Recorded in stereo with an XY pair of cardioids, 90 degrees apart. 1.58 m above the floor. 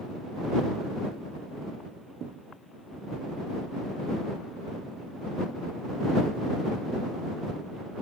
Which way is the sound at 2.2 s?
65° right.